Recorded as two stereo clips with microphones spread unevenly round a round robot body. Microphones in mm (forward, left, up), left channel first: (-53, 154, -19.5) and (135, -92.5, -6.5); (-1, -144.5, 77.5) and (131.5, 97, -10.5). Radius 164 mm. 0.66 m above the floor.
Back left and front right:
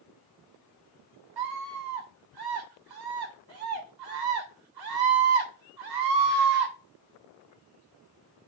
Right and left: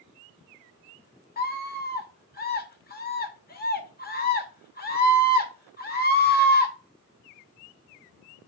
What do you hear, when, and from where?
1.4 s a scream: 55° right, 3 m